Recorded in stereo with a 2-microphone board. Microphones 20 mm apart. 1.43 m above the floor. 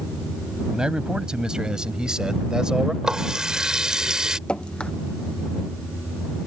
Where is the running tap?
40° right (ahead or behind).